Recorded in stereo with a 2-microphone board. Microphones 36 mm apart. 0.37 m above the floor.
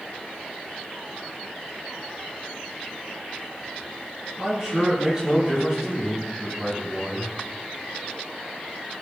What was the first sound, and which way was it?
A man speaking, 20° right (ahead or behind).